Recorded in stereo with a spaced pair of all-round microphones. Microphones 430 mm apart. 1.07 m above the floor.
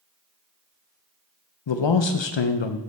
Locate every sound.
1.7 s a man speaking: 80° left, 0.5 m